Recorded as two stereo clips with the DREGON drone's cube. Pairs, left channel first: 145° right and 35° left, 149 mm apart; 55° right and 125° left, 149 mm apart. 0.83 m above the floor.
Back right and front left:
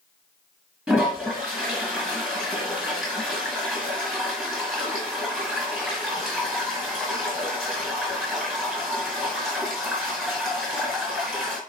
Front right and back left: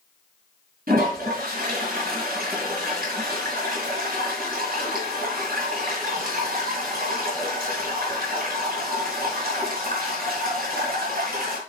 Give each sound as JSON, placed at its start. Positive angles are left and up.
{"t": 0.9, "sound": "a toilet flushing", "azimuth_deg": 115, "distance_m": 3.5}